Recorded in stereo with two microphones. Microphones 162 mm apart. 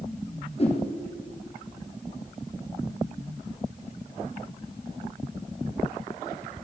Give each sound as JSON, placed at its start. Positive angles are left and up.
{"t": 0.6, "sound": "a whoosh", "side_deg": 40, "distance_m": 2.0}